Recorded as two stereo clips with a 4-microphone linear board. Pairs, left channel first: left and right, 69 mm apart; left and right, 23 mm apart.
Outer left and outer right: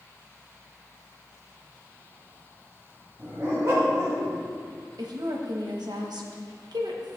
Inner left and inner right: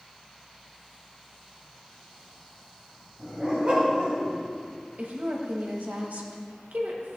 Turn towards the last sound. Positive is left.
turn(degrees=-85)